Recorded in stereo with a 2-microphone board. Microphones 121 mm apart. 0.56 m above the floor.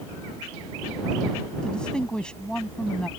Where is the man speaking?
5° left (ahead or behind).